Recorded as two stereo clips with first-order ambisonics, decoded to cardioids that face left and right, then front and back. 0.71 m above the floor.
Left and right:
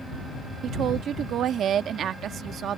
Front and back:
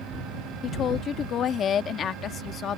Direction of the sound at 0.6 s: 45° right.